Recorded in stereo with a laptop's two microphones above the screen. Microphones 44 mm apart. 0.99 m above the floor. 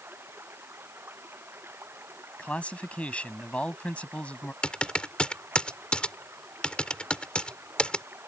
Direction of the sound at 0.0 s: 65° right (ahead or behind).